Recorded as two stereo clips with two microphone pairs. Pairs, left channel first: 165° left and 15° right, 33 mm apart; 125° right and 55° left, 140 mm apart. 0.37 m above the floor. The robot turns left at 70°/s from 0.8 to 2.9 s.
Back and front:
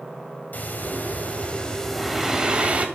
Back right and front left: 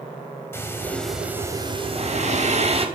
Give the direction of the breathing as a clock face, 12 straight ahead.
6 o'clock.